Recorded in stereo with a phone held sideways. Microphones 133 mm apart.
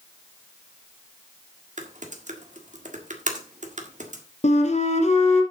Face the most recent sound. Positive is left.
turn(degrees=65)  # may be behind; listen again after turning